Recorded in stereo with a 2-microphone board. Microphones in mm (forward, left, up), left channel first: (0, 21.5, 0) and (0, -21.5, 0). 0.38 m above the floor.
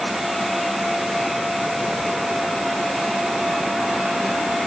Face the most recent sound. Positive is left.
No sound to turn to.